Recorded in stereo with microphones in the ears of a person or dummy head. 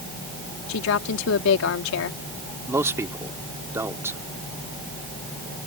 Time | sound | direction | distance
0.7 | a woman speaking | 70° left (ahead or behind) | ?
2.7 | a man speaking | 15° right (ahead or behind) | ?